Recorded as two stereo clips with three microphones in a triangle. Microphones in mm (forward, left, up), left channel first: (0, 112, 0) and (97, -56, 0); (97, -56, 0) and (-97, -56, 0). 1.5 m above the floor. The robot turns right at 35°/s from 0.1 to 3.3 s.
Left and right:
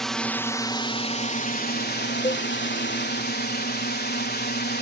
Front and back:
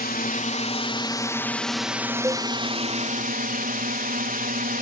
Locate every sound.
0.0 s a drone: 30° left; by 4.8 s 145° left
2.2 s a cowbell: 110° left; by 2.5 s 120° left